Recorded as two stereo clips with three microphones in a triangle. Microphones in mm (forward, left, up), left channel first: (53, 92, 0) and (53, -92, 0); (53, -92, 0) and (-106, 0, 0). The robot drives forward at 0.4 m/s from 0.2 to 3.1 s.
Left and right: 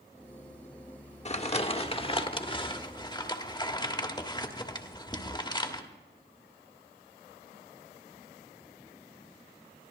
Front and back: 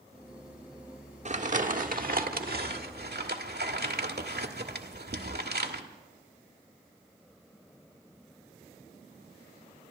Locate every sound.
1.2 s crumpling: 125° left, 1.0 m; by 5.8 s 150° left, 1.5 m